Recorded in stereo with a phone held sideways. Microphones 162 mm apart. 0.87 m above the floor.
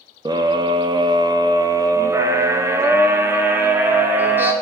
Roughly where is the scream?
Right.